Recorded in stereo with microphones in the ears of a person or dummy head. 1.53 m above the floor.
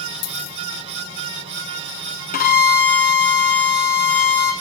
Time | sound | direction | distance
0.2 | a dropped coin | 75° left (ahead or behind) | 3.5 m
2.3 | a violin | 45° left (ahead or behind) | 0.9 m